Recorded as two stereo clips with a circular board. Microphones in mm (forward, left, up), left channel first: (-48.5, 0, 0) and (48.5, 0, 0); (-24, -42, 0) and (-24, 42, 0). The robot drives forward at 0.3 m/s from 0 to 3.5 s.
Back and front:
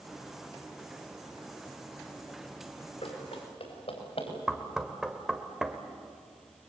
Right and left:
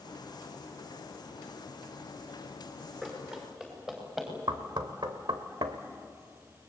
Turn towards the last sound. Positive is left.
turn(degrees=85)